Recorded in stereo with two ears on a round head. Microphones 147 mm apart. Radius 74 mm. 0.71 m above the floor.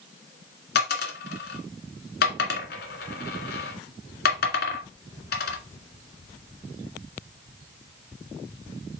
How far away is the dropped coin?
About 1.9 m.